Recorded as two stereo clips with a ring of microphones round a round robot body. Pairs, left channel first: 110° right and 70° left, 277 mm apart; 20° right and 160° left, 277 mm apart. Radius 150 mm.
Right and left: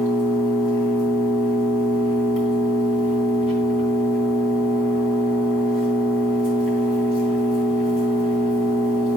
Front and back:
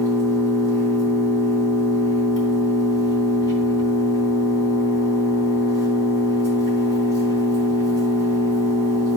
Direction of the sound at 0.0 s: 100° right.